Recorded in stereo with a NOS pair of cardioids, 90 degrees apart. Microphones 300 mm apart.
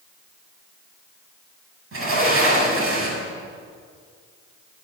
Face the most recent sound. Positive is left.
turn(degrees=-45)